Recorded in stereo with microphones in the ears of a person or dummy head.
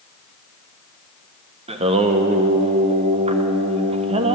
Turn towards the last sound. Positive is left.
turn(degrees=-30)  # may be behind; listen again after turning